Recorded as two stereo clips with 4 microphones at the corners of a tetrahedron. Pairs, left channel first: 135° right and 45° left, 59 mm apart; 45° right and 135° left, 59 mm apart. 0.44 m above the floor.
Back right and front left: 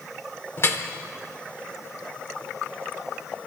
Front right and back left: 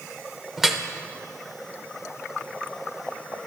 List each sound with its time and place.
0.6 s dripping: 145° right, 1.0 m